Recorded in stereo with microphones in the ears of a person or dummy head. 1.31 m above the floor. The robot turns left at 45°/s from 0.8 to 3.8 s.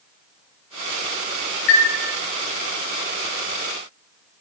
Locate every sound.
1.7 s a chime: 60° left (ahead or behind), 1.3 m; by 1.9 s 55° left (ahead or behind), 1.3 m